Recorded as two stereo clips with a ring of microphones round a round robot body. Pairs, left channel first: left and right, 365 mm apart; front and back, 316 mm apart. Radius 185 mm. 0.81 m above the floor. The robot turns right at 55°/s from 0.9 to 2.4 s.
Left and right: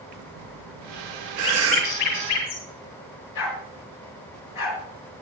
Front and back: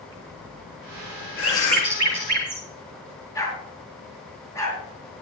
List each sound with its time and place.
0.1 s breathing: 80° right, 1.1 m; by 2.4 s 5° left, 1.1 m
1.4 s a bird: 70° left, 8 m; by 2.6 s 125° left, 8 m
3.4 s a dog barking: 80° left, 3.5 m